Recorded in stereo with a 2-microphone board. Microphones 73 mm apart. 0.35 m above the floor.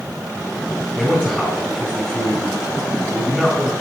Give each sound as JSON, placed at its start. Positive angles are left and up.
{"t": 0.9, "sound": "a man speaking", "side_deg": 10, "distance_m": 3.0}